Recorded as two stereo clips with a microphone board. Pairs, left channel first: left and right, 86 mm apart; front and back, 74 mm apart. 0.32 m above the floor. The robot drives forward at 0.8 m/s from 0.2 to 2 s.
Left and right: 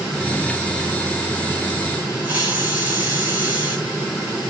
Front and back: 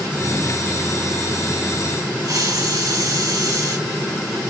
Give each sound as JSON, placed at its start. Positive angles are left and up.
{"t": 2.2, "sound": "a hiss", "azimuth_deg": -160, "distance_m": 4.5}